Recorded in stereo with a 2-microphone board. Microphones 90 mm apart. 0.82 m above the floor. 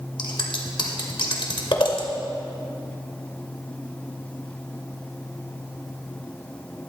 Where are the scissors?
60° left (ahead or behind), 1.8 m.